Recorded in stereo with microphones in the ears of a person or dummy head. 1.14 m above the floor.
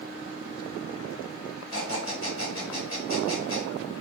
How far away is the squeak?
About 2.0 m.